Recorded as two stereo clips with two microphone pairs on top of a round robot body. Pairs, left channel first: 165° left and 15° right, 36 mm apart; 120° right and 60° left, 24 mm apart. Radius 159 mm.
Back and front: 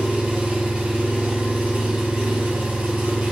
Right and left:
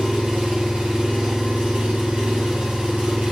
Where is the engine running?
50° left, 1.0 m.